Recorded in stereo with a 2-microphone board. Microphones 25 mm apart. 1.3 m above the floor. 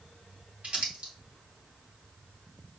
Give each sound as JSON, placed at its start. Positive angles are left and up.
{"t": 0.6, "sound": "crumpling", "side_deg": -55, "distance_m": 1.9}